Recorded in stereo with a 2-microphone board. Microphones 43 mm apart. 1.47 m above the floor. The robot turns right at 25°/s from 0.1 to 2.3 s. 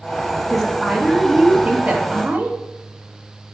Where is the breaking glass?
I don't hear breaking glass.